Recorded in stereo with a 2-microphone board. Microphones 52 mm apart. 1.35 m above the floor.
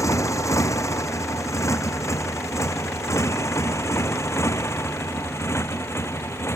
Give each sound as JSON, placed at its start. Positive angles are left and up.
{"t": 0.0, "sound": "a motorcycle", "side_deg": 85}